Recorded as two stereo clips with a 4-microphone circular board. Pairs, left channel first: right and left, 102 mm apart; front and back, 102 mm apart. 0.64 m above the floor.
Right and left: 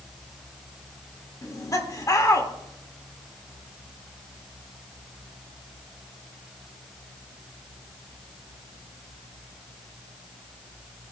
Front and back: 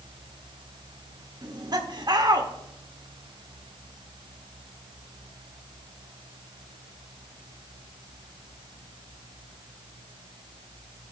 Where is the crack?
I don't hear a crack.